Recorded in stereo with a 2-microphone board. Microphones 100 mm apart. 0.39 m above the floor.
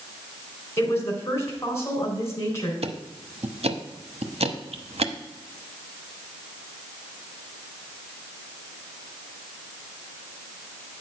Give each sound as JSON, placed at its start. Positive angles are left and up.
{"t": 0.8, "sound": "a woman speaking", "side_deg": 25, "distance_m": 3.0}
{"t": 2.8, "sound": "ticking", "side_deg": -75, "distance_m": 0.8}